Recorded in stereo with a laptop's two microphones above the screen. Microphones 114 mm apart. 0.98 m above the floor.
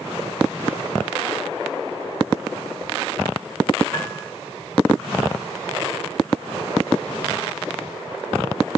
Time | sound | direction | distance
3.9 | a piano | 30° left (ahead or behind) | 5.5 m